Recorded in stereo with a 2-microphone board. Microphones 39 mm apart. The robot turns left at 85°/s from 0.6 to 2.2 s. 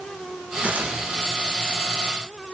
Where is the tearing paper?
30° right, 4 m; by 1.0 s 65° right, 4 m.